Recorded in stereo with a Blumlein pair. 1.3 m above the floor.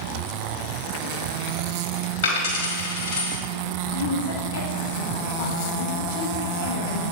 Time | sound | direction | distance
2.2 | a dropped coin | 60° left | 2 m
3.9 | a woman speaking | 55° left | 1.9 m